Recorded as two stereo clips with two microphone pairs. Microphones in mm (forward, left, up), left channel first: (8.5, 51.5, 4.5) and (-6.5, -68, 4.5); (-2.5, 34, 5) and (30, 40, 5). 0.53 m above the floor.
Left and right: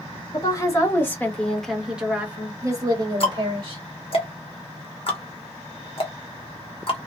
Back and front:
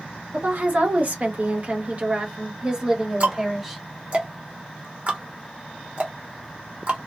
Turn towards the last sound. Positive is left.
turn(degrees=50)